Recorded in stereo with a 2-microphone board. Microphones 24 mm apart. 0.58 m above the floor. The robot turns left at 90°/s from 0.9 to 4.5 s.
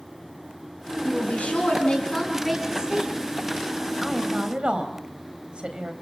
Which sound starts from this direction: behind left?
A woman speaking, at 1.0 s.